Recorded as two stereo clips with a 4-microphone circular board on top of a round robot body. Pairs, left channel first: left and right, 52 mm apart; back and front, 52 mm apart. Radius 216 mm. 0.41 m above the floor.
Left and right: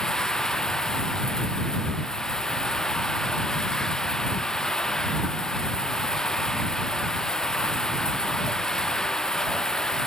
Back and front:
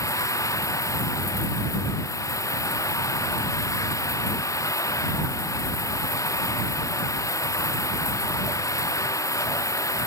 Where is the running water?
165° left.